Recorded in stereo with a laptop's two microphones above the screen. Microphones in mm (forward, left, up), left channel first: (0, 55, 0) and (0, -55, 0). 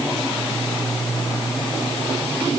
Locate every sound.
Only background noise.